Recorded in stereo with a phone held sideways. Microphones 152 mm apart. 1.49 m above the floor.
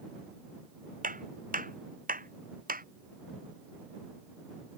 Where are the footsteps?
65° right (ahead or behind); by 2.9 s 70° right (ahead or behind).